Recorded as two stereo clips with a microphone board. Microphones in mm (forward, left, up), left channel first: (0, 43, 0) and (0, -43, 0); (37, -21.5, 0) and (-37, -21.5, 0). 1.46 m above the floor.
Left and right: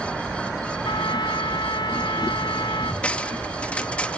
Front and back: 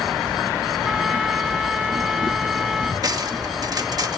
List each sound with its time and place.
0.8 s a trumpet: 95° left
3.0 s cutlery clinking: 160° left